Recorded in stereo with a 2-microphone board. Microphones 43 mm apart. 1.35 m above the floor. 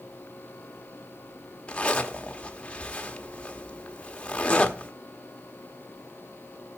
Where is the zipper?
25° left (ahead or behind), 1.3 m.